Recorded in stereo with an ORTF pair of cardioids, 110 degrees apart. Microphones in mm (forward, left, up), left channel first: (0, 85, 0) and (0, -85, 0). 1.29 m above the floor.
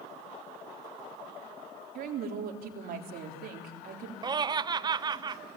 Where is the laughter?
25° right, 0.5 m.